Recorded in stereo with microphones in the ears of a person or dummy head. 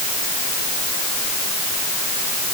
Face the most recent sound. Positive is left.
No sound to turn to.